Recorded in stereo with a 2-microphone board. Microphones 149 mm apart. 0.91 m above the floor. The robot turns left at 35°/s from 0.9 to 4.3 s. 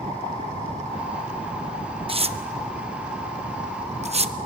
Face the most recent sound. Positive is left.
turn(degrees=-40)  # may be behind; listen again after turning